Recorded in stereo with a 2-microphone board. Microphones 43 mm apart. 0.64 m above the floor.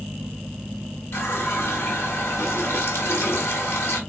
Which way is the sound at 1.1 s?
70° left (ahead or behind).